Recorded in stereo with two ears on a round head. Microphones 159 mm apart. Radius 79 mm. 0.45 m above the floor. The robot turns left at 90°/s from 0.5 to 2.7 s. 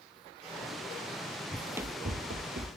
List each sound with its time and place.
1.5 s running footsteps: 20° left (ahead or behind), 0.7 m; by 2.7 s 55° right (ahead or behind), 1.3 m